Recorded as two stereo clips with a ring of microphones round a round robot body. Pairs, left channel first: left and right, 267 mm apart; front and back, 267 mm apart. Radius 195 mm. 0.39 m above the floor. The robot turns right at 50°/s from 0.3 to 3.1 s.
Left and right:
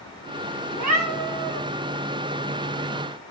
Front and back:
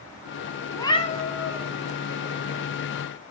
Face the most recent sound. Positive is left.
turn(degrees=35)